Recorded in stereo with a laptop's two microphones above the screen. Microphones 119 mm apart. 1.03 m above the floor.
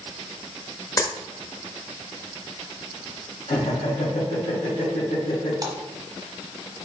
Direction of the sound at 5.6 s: 30° right (ahead or behind).